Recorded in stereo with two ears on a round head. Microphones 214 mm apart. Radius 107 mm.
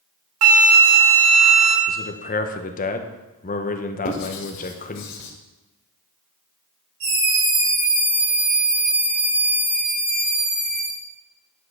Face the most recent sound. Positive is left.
turn(degrees=-90)